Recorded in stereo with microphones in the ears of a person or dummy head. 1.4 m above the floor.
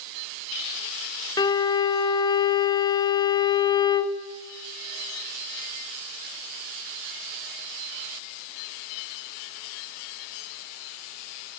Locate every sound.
1.4 s a violin: 20° left (ahead or behind), 0.6 m